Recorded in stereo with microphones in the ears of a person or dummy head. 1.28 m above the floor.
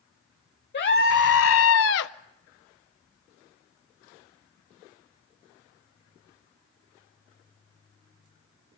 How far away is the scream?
About 1.1 m.